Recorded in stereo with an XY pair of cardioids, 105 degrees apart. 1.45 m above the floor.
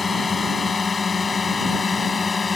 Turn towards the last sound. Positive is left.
turn(degrees=35)